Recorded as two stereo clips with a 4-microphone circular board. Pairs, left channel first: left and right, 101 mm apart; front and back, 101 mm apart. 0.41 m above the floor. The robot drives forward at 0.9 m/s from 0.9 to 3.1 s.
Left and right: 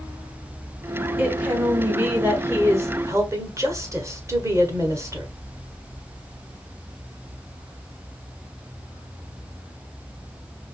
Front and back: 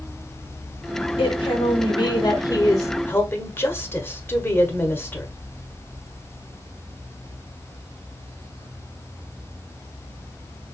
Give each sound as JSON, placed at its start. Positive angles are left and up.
{"t": 1.2, "sound": "a woman speaking", "azimuth_deg": -15, "distance_m": 2.5}